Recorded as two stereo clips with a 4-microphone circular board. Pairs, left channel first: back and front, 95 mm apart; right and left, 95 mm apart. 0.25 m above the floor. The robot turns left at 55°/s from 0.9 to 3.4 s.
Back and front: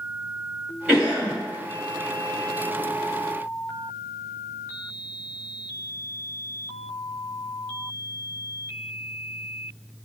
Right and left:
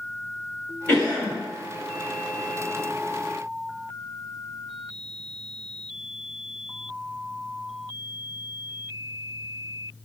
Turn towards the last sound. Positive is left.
turn(degrees=160)